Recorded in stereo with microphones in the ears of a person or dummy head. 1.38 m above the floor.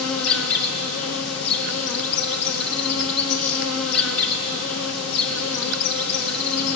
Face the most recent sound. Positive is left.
turn(degrees=70)  # may be behind; listen again after turning